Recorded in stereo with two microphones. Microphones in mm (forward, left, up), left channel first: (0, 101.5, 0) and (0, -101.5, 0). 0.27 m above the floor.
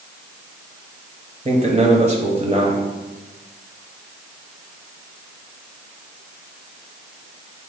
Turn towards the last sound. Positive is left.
turn(degrees=-30)  # may be behind; listen again after turning